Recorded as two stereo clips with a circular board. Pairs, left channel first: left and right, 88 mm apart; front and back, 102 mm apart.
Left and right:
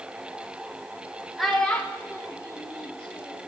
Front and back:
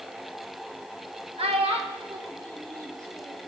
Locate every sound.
1.4 s a child speaking: straight behind, 1.2 m; by 3.5 s 120° left, 2.0 m